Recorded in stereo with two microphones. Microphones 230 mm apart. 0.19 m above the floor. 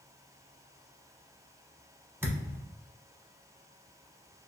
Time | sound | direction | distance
2.2 | a thud | 10° right (ahead or behind) | 0.6 m